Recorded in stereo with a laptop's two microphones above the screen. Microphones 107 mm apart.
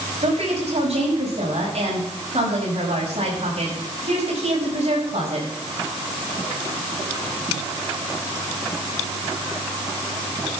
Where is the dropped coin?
No dropped coin in this recording.